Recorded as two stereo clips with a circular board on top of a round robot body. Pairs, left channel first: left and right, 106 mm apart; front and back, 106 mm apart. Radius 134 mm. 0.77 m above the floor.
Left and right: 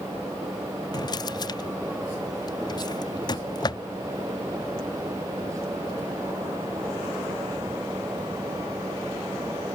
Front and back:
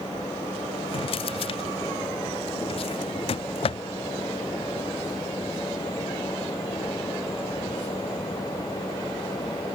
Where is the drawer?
35° left.